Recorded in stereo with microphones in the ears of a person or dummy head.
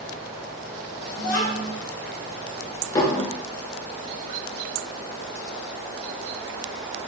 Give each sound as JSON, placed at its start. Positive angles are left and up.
{"t": 1.2, "sound": "a child speaking", "side_deg": 45, "distance_m": 0.6}
{"t": 3.0, "sound": "dishes clattering", "side_deg": 20, "distance_m": 0.5}